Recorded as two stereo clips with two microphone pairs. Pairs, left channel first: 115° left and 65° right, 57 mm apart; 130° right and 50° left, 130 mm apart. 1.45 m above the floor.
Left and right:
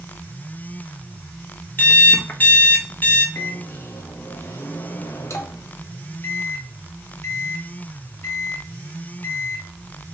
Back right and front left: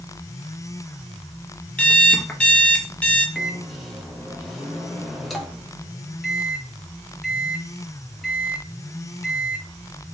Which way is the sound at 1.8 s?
155° left.